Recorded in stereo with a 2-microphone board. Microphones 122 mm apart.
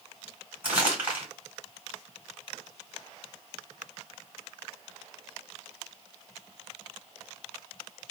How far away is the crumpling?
About 2.5 m.